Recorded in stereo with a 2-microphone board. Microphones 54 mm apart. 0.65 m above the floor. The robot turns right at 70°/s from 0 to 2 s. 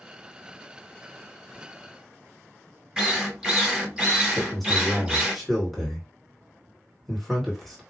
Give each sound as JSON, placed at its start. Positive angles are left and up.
{"t": 3.0, "sound": "a drill", "side_deg": -15, "distance_m": 1.3}
{"t": 4.3, "sound": "a man speaking", "side_deg": 5, "distance_m": 2.5}